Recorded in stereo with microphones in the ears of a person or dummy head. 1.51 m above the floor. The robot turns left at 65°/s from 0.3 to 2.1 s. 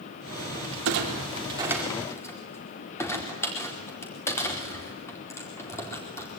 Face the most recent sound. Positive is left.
turn(degrees=15)  # may be behind; listen again after turning